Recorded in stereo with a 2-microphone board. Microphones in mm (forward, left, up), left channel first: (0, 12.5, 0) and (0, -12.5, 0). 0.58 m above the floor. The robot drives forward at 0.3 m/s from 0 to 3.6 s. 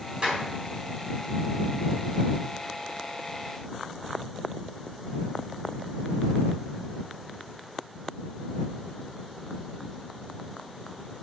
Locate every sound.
0.2 s a clap: 40° right (ahead or behind), 4 m